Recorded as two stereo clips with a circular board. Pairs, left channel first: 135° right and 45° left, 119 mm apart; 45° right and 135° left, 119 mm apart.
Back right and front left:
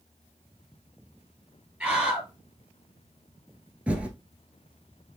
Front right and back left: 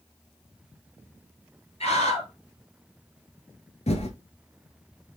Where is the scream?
35° right, 3 m.